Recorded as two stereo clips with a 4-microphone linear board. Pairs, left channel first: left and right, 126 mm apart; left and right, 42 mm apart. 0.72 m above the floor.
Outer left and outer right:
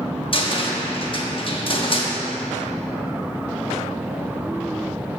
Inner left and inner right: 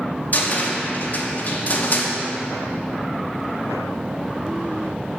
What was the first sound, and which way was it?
A cupboard door, 40° left (ahead or behind).